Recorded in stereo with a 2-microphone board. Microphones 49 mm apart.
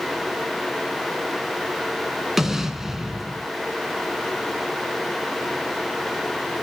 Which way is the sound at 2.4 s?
10° right (ahead or behind).